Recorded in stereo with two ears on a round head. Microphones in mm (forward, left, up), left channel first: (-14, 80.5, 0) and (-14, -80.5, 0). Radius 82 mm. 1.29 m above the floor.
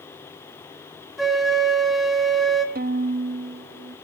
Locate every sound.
1.2 s a flute: centre (ahead or behind), 2 m
2.8 s a violin: 50° right (ahead or behind), 0.8 m